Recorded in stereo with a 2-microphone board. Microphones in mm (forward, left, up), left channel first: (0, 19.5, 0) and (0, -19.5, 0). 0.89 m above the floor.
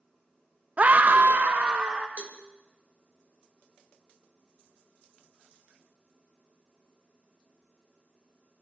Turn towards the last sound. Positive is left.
turn(degrees=-45)  # may be behind; listen again after turning